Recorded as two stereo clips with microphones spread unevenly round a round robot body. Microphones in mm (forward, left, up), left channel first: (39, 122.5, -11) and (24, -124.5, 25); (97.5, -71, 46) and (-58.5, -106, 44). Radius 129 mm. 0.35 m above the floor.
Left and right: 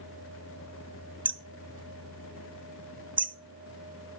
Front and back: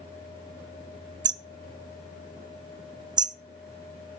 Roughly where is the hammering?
Behind.